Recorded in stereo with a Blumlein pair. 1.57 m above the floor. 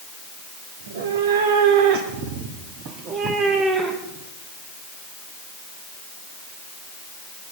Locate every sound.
0.8 s a cat meowing: 65° right, 2.5 m; by 4.3 s 15° right, 2.5 m